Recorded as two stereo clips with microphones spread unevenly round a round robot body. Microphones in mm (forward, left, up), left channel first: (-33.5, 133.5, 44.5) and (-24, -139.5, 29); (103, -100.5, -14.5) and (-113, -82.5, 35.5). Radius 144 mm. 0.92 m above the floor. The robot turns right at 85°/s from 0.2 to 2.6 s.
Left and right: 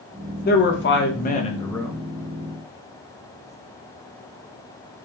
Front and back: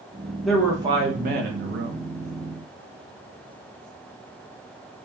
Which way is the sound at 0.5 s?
65° left.